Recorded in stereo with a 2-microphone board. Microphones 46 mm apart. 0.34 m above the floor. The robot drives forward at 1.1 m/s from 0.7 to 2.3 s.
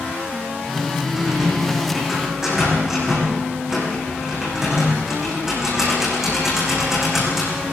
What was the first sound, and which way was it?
A rattle, 10° right (ahead or behind).